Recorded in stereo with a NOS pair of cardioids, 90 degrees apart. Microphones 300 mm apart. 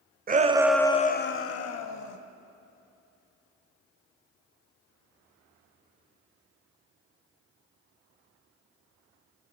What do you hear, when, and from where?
0.3 s a shout: 30° right, 0.8 m; by 2.2 s 70° left, 1.4 m